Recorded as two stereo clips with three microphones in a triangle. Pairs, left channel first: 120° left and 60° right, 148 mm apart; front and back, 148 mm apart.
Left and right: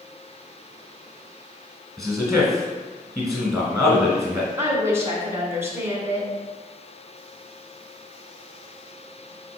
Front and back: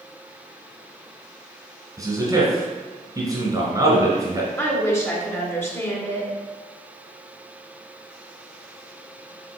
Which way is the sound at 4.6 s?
30° right.